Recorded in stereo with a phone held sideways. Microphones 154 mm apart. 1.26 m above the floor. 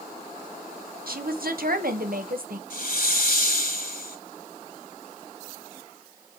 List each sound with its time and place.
1.1 s a woman speaking: 70° right (ahead or behind), 1.3 m
2.7 s a hiss: 70° left (ahead or behind), 2 m